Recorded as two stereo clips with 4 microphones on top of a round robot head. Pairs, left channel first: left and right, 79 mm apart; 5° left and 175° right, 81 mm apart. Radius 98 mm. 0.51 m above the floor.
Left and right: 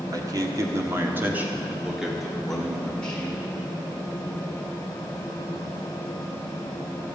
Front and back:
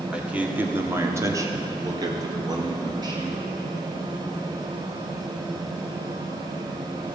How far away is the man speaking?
About 1.8 m.